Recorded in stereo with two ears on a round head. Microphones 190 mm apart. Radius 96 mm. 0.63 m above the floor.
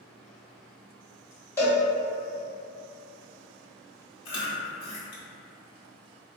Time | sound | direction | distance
1.6 | a cowbell | 15° left (ahead or behind) | 1.5 m
4.2 | chewing | 60° left (ahead or behind) | 1.2 m